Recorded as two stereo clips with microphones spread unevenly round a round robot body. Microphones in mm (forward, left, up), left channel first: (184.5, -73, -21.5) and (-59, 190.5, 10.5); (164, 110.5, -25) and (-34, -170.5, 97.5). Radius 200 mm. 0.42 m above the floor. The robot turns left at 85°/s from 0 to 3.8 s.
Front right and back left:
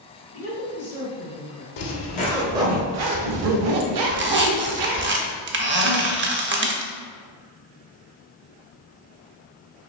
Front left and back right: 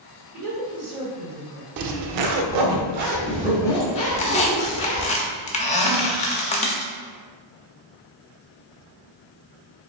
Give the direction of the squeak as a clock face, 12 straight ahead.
9 o'clock.